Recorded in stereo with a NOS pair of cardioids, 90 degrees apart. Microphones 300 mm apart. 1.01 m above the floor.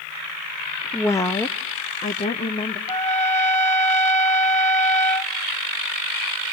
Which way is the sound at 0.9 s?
5° left.